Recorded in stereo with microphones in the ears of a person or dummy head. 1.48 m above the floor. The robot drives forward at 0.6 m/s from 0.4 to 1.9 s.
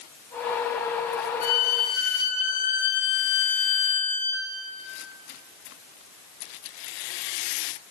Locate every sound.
1.4 s a violin: 45° left (ahead or behind), 1.3 m; by 4.5 s 55° left (ahead or behind), 1.1 m